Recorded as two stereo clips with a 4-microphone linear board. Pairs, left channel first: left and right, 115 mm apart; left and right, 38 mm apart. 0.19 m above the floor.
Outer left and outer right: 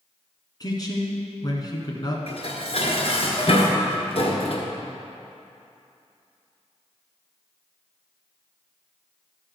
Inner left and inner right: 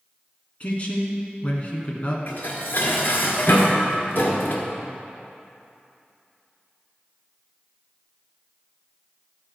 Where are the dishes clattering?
60° left (ahead or behind), 1.6 m.